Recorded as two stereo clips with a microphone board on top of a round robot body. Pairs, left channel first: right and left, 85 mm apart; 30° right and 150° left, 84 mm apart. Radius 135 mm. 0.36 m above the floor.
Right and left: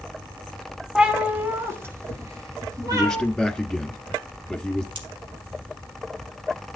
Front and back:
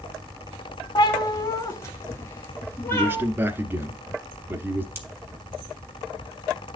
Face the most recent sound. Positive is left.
turn(degrees=85)